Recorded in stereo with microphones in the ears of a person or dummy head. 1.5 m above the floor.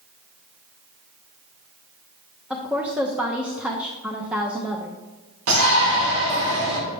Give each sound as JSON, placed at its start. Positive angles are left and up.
{"t": 2.5, "sound": "a woman speaking", "side_deg": -5, "distance_m": 0.7}
{"t": 5.5, "sound": "a shout", "side_deg": -75, "distance_m": 1.7}